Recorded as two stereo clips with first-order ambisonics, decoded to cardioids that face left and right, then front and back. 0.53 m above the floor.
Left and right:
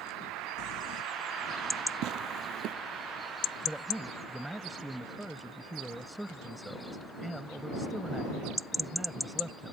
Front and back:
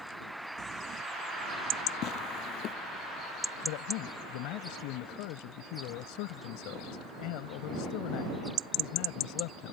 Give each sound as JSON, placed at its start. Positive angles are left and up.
{"t": 0.6, "sound": "crumpling", "azimuth_deg": 120}
{"t": 2.0, "sound": "tearing paper", "azimuth_deg": -45}
{"t": 3.6, "sound": "a man speaking", "azimuth_deg": -5}